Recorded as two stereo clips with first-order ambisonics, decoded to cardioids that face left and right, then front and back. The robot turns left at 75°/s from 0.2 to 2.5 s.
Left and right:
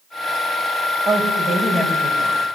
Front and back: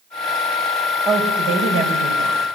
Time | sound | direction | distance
1.1 | a woman speaking | 125° right | 4.5 m